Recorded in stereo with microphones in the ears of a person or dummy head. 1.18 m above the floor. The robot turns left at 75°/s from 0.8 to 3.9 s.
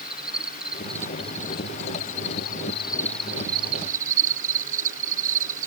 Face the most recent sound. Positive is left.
turn(degrees=-50)